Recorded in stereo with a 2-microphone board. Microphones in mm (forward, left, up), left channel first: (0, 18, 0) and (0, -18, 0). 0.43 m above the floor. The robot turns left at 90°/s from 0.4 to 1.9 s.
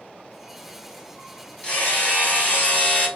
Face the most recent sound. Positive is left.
turn(degrees=45)  # may be behind; listen again after turning